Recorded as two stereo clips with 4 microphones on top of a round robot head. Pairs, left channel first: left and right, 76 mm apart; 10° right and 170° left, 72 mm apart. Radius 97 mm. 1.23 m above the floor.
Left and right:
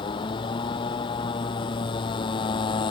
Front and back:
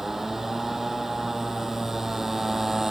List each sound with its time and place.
0.0 s a motorcycle: 85° left